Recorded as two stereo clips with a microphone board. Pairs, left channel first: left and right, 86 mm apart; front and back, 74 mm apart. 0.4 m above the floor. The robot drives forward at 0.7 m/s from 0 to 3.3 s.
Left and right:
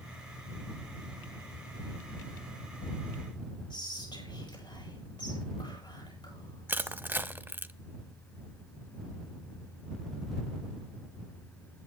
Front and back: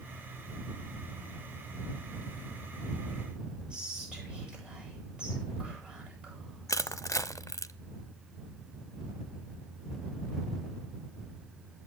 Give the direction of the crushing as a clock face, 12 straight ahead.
1 o'clock.